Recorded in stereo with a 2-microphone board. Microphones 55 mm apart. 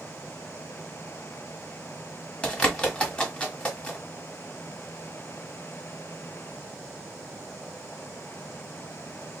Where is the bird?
20° left (ahead or behind), 1.4 m.